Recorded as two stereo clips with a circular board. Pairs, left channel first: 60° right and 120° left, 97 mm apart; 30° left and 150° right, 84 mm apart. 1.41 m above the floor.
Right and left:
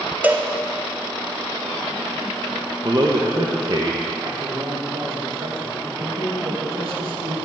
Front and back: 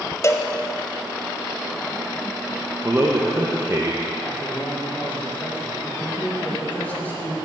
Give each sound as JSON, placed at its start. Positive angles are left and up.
{"t": 0.2, "sound": "a cowbell", "azimuth_deg": 60, "distance_m": 0.6}
{"t": 2.8, "sound": "a man speaking", "azimuth_deg": 160, "distance_m": 1.0}
{"t": 4.2, "sound": "a man speaking", "azimuth_deg": 100, "distance_m": 2.5}